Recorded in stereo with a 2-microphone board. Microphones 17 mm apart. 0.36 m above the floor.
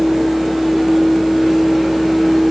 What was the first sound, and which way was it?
Only background noise.